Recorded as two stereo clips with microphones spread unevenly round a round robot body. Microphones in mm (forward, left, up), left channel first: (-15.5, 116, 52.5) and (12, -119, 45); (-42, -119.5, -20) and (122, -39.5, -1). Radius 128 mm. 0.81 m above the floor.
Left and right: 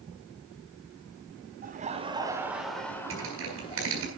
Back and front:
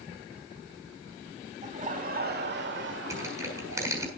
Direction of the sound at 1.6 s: 30° right.